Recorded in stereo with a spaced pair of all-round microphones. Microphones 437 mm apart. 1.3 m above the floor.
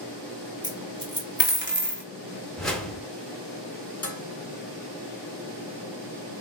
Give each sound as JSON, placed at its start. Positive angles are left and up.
{"t": 0.6, "sound": "a dropped coin", "side_deg": -25, "distance_m": 1.7}
{"t": 2.6, "sound": "a whoosh", "side_deg": 0, "distance_m": 1.4}
{"t": 4.0, "sound": "dishes clattering", "side_deg": 30, "distance_m": 1.5}